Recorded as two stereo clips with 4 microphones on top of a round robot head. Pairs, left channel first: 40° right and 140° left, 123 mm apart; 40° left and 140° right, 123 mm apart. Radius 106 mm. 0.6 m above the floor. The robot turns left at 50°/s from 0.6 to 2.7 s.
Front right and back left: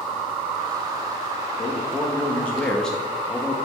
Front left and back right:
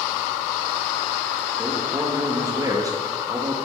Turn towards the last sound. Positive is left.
turn(degrees=-120)